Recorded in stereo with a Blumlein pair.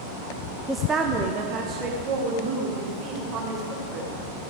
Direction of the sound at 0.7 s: 5° right.